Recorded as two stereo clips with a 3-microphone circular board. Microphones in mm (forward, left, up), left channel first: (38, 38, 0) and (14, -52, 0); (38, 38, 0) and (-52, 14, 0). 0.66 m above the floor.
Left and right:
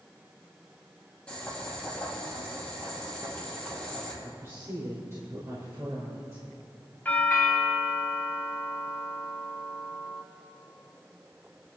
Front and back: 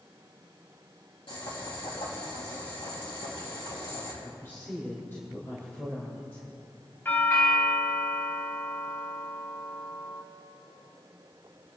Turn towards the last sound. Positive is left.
turn(degrees=35)